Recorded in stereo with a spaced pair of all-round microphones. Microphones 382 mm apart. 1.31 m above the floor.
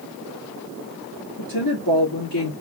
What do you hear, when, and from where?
1.4 s a woman speaking: 60° left (ahead or behind), 3 m